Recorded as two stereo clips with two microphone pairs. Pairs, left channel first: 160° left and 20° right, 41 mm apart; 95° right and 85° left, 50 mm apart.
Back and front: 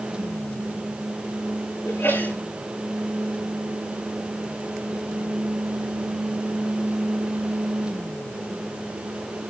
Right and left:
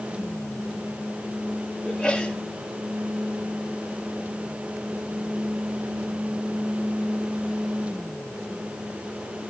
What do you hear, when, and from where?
1.9 s a sneeze: 170° right, 9 m